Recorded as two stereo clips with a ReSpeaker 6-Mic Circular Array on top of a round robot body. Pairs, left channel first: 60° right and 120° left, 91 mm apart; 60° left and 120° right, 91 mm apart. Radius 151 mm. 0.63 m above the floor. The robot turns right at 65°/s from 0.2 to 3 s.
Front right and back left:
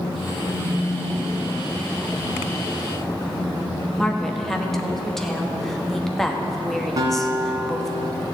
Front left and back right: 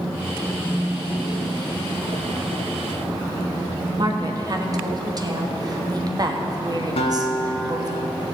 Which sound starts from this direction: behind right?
A woman speaking, at 4.0 s.